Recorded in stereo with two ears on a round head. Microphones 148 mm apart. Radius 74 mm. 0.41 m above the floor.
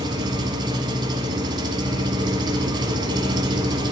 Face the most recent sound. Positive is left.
turn(degrees=-30)  # may be behind; listen again after turning